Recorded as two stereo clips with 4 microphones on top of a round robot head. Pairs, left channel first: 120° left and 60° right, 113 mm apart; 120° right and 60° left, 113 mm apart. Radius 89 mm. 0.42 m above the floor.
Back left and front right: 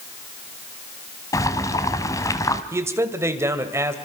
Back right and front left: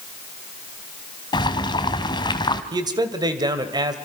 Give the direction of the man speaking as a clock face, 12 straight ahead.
12 o'clock.